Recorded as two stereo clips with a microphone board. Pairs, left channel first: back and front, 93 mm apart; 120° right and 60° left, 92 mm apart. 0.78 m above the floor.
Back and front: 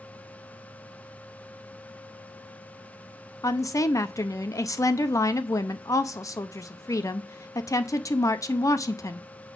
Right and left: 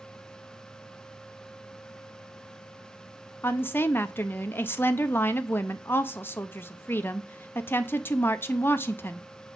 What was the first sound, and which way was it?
A woman speaking, 170° right.